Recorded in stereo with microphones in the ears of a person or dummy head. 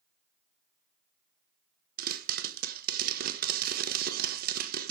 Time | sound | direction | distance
2.0 | a pop | 50° right (ahead or behind) | 1.3 m